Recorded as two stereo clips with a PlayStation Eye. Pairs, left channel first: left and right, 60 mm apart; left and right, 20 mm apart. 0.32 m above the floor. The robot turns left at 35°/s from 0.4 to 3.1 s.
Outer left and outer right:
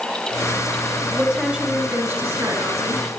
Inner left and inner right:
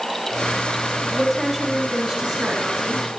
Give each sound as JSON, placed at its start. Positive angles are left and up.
{"t": 1.1, "sound": "a woman speaking", "azimuth_deg": -5, "distance_m": 3.5}